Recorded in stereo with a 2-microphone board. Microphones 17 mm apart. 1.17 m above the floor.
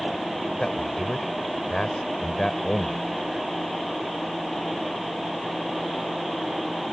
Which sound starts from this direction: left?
A man speaking, at 0.6 s.